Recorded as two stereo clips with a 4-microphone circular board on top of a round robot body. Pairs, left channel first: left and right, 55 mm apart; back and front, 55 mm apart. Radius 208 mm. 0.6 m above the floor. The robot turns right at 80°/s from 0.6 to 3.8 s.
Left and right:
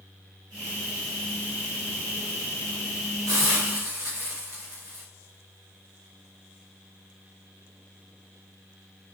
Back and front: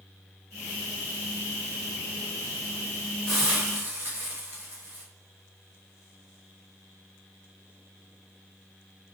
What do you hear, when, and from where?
3.3 s a hiss: 100° right, 0.9 m; by 5.0 s 55° right, 0.9 m